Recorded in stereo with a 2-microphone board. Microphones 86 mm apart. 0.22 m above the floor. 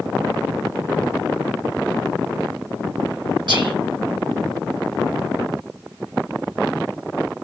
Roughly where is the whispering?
Right.